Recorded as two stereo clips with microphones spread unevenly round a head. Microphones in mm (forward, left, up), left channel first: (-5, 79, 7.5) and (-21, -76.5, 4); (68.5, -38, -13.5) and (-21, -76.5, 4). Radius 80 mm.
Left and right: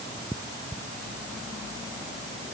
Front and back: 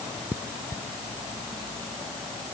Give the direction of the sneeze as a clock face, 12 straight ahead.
I don't hear a sneeze.